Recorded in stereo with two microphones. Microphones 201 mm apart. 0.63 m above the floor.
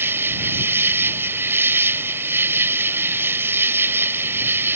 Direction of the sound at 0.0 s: 10° right (ahead or behind).